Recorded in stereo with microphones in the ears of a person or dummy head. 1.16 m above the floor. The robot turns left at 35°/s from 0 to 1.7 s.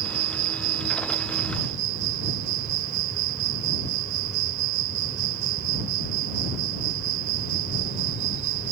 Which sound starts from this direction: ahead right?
An insect, at 0.0 s.